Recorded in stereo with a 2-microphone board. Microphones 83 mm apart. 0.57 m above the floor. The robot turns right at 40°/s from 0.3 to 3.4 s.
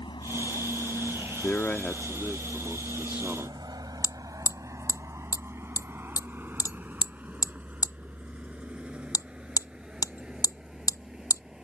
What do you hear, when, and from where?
0.0 s a vehicle: 75° left (ahead or behind); by 11.7 s 10° right (ahead or behind)
1.4 s a man speaking: 135° left; by 3.6 s 145° right
4.0 s hammering: 45° left (ahead or behind)